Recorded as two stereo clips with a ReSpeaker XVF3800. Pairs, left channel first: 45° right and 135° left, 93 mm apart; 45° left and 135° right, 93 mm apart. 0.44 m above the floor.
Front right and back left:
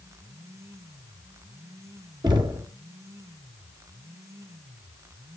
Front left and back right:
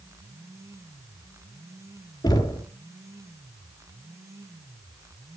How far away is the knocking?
About 4 m.